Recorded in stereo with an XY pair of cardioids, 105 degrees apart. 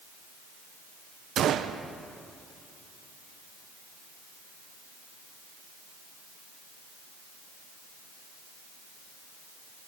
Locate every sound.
1.4 s a gunshot: 65° right, 1.0 m